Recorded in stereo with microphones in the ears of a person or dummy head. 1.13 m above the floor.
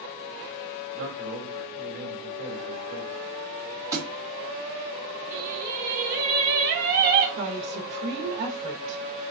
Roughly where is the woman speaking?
Right.